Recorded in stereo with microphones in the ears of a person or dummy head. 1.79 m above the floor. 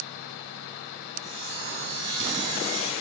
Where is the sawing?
40° right (ahead or behind), 3.5 m.